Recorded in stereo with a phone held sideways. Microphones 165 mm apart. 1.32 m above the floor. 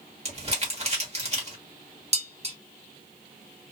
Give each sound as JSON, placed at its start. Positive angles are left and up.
{"t": 0.2, "sound": "crumpling", "side_deg": -40, "distance_m": 1.3}
{"t": 2.1, "sound": "dishes clattering", "side_deg": -40, "distance_m": 0.7}